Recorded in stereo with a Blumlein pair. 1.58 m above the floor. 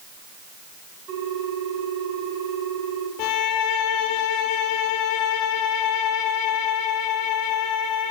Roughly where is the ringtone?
Ahead right.